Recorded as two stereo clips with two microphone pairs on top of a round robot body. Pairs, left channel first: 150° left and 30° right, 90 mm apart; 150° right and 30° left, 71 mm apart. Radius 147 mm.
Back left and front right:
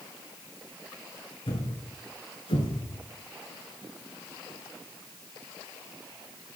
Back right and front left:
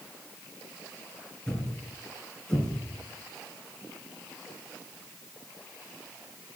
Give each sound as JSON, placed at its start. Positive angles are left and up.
{"t": 1.5, "sound": "a thud", "azimuth_deg": 130, "distance_m": 3.0}